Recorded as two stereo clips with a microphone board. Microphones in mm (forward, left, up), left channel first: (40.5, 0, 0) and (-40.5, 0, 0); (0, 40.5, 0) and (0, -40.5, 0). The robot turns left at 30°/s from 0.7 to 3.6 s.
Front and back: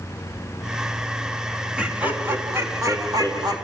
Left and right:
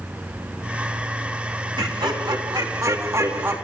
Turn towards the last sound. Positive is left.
turn(degrees=-155)